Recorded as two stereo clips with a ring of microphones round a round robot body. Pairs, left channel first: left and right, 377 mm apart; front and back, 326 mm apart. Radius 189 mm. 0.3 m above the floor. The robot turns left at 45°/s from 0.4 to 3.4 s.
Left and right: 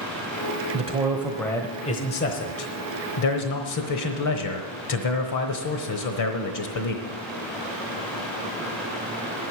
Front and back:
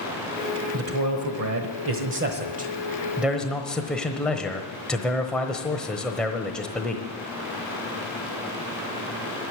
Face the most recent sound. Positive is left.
turn(degrees=85)